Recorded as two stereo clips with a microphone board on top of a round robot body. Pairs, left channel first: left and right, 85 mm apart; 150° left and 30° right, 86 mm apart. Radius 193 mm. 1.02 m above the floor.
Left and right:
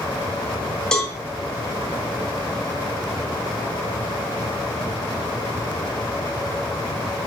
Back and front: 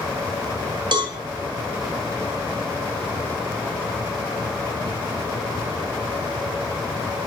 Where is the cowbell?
5° left, 3 m.